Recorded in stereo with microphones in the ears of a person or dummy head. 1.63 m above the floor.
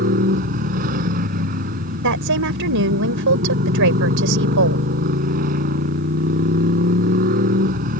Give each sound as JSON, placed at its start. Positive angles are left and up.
{"t": 0.0, "sound": "a motorcycle", "side_deg": -45}
{"t": 2.0, "sound": "a woman speaking", "side_deg": -75}